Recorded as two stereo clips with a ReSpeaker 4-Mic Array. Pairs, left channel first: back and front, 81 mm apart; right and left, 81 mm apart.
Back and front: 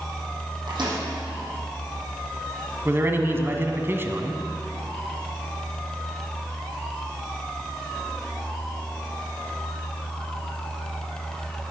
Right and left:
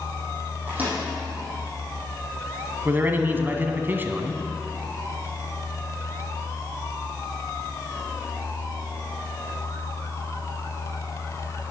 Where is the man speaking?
40° left, 1.4 m.